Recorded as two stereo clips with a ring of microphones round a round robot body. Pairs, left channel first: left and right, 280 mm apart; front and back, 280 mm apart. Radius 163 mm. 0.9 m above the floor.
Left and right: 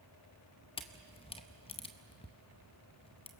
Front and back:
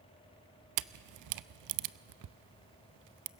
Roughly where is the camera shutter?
Behind.